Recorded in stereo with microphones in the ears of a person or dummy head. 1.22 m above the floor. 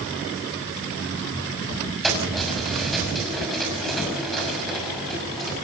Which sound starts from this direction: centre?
Keys jangling, at 2.0 s.